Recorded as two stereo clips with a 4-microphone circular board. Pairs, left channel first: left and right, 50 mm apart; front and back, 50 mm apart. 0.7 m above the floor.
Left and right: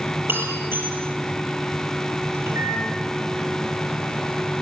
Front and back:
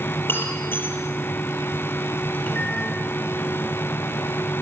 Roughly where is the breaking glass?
Ahead right.